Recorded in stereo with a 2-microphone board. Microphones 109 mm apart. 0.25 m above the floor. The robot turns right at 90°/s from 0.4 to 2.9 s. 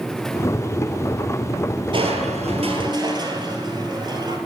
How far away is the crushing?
About 2.5 m.